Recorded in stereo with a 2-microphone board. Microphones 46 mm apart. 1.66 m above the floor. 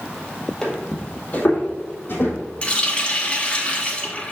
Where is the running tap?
25° left (ahead or behind), 1.1 m.